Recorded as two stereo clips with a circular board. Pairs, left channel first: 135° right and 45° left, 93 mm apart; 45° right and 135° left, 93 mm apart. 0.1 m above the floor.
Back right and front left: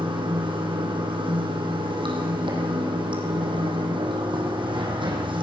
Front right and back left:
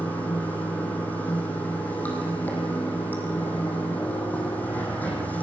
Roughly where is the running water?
Ahead left.